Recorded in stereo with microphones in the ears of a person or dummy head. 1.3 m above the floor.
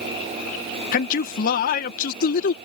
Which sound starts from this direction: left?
A man speaking, at 0.9 s.